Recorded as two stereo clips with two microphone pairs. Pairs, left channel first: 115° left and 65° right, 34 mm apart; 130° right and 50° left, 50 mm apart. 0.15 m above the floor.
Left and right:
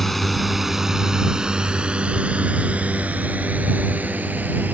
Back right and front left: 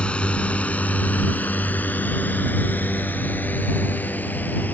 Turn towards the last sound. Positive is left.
turn(degrees=-80)